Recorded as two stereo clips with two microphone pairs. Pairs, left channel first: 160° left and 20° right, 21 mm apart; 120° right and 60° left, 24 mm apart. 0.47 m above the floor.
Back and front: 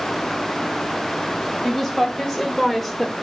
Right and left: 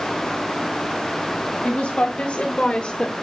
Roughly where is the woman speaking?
Behind right.